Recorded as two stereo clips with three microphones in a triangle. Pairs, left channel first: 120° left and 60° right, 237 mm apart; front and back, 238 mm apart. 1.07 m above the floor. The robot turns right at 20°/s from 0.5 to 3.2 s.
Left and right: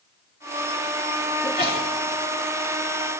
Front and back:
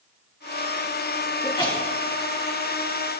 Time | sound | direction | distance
1.4 | a sneeze | 65° left | 2.5 m